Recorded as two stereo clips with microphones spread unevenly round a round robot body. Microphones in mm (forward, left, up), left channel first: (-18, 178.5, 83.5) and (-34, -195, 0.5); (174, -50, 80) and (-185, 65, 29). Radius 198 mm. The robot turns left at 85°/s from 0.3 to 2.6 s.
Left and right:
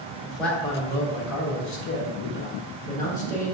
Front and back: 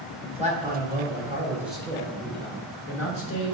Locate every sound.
0.2 s a man speaking: 150° right, 1.0 m; by 3.5 s 15° left, 1.0 m